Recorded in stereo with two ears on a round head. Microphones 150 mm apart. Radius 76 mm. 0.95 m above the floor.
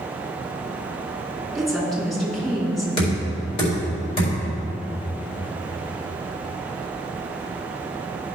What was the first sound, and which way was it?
A woman speaking, centre (ahead or behind).